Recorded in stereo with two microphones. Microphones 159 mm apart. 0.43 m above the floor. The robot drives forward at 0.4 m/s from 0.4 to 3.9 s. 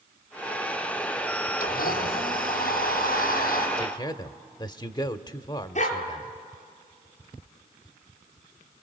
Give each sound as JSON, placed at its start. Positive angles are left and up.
{"t": 1.6, "sound": "a blender", "side_deg": 80, "distance_m": 5.0}
{"t": 3.8, "sound": "a man speaking", "side_deg": 30, "distance_m": 0.9}
{"t": 5.8, "sound": "a dog barking", "side_deg": 50, "distance_m": 4.0}